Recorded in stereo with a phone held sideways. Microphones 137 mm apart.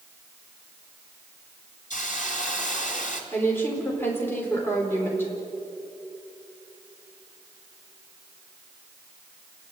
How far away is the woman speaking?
About 4.5 m.